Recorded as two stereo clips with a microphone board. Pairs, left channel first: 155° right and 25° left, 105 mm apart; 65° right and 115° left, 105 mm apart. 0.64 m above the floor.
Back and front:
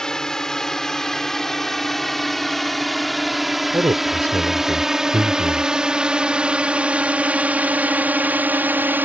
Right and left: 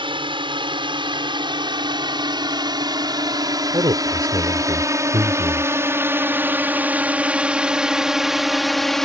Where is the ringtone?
No ringtone in this recording.